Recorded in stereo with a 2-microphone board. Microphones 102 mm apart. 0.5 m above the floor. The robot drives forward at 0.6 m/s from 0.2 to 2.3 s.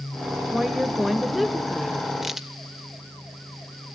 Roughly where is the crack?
Centre.